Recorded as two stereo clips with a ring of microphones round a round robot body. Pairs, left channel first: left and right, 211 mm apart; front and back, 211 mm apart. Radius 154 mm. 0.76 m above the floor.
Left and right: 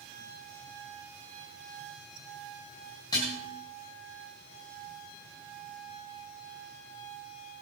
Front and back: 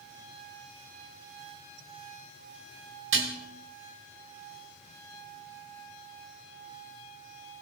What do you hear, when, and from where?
3.1 s dishes clattering: 170° left, 3 m